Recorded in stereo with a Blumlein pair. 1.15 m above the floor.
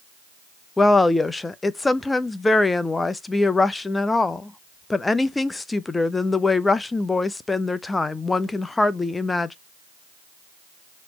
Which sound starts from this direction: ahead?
A woman speaking, at 0.8 s.